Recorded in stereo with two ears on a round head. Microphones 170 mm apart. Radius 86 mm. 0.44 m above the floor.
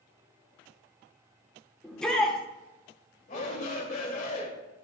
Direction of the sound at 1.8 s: 5° left (ahead or behind).